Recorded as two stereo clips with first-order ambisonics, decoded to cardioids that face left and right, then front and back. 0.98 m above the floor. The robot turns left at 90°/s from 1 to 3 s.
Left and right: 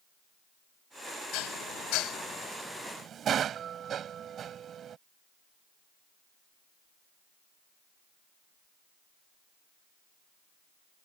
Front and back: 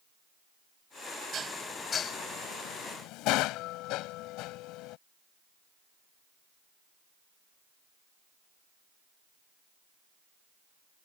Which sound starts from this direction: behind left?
Dishes clattering, at 1.3 s.